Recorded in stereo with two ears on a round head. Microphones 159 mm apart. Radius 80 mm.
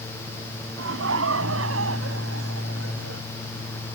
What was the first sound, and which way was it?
Laughter, 85° right.